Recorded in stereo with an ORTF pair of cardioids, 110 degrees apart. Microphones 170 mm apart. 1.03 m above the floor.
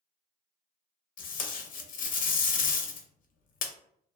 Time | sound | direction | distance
1.2 | tape being pulled | 55° left | 0.6 m